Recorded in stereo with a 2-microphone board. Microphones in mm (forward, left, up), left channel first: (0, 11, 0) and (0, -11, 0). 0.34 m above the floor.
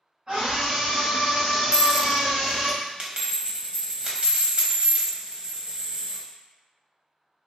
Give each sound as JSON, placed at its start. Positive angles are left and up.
{"t": 0.3, "sound": "a scream", "side_deg": -40, "distance_m": 1.9}
{"t": 1.7, "sound": "a dropped coin", "side_deg": -45, "distance_m": 0.9}